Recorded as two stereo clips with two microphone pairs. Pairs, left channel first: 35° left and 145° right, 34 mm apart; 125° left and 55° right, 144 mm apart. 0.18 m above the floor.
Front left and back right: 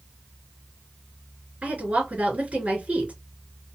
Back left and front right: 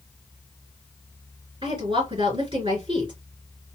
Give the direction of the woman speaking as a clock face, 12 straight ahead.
4 o'clock.